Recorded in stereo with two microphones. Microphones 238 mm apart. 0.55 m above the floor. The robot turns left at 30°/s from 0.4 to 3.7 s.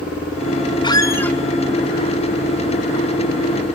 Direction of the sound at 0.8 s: 20° left (ahead or behind).